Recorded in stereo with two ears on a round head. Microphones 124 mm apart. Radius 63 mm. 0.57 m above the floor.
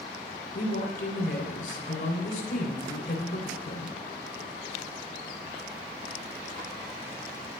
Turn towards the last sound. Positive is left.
turn(degrees=65)  # may be behind; listen again after turning